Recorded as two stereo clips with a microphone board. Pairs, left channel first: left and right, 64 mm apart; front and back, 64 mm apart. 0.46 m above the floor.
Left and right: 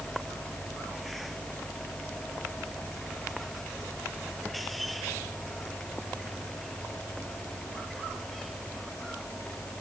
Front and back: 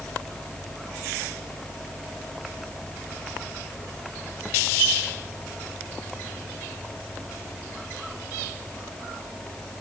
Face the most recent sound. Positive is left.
No sound to turn to.